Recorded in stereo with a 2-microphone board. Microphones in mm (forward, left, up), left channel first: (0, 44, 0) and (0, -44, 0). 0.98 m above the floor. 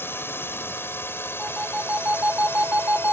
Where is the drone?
25° left (ahead or behind).